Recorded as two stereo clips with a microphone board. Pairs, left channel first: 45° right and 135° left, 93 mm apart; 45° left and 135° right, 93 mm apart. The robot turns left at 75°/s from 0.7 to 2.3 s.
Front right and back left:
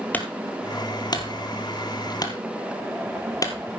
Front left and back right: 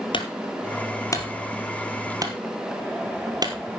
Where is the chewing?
No chewing in this recording.